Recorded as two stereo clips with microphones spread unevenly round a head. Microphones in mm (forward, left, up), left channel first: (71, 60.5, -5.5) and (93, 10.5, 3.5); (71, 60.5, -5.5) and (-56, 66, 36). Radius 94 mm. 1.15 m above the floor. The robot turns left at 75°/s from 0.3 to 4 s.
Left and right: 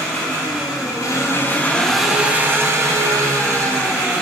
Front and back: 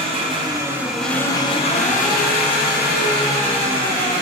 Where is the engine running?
145° left, 0.7 m; by 4.2 s 130° right, 0.7 m.